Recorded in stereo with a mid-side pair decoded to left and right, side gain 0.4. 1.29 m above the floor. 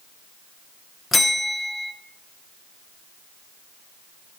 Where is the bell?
30° left, 0.7 m.